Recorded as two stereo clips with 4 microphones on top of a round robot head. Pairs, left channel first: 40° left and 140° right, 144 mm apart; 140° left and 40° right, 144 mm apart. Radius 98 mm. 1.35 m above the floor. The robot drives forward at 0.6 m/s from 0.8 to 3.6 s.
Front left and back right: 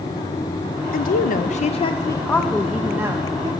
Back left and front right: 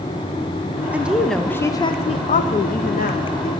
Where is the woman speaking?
40° left, 0.8 m; by 3.5 s 150° left, 1.1 m.